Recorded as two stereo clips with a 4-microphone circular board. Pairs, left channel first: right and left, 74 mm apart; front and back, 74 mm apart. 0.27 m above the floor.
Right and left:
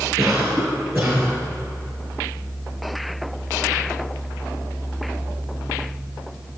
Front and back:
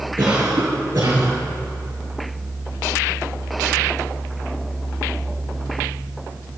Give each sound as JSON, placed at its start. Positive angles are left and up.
{"t": 0.2, "sound": "a cough", "azimuth_deg": 155, "distance_m": 3.5}